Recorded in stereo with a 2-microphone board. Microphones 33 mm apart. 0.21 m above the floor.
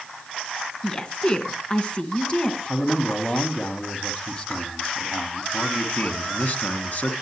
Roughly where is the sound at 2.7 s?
Left.